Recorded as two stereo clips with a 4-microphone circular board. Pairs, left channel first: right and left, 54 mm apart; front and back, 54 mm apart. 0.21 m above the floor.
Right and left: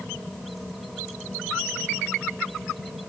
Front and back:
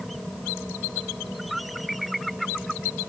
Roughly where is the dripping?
I don't hear dripping.